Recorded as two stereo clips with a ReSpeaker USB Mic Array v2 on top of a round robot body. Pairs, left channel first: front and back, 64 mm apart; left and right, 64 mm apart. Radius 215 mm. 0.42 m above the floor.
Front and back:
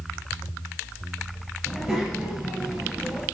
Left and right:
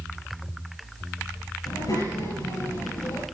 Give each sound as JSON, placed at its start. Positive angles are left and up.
{"t": 1.6, "sound": "a child speaking", "azimuth_deg": 95, "distance_m": 9.0}